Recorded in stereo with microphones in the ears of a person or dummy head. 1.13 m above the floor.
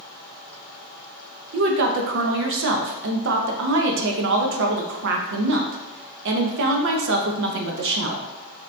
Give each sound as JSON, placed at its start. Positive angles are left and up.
{"t": 1.5, "sound": "a woman speaking", "side_deg": -60, "distance_m": 0.7}